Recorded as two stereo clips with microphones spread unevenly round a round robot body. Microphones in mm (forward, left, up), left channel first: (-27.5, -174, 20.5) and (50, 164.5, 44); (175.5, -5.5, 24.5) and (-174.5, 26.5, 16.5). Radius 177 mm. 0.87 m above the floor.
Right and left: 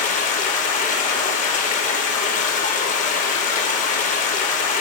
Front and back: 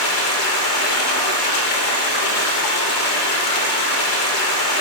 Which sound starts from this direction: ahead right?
Running water, at 0.0 s.